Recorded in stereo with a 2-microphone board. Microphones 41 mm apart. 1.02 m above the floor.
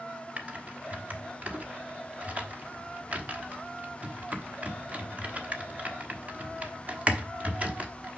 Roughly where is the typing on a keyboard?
Right.